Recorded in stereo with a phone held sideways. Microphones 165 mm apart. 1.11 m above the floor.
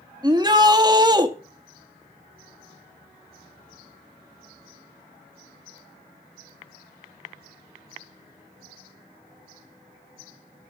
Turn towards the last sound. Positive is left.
turn(degrees=-25)  # may be behind; listen again after turning